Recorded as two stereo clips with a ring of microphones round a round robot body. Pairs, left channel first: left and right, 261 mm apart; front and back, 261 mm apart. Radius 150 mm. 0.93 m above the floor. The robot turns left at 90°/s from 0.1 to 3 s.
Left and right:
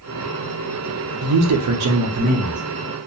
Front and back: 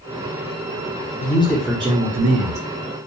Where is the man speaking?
55° right, 0.5 m; by 2.6 s straight behind, 0.5 m.